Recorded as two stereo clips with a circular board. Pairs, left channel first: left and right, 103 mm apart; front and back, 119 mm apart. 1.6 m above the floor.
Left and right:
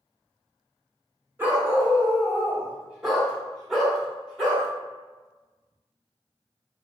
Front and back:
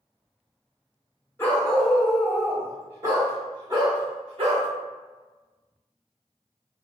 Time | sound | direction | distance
1.4 | a dog barking | 45° right | 1.3 m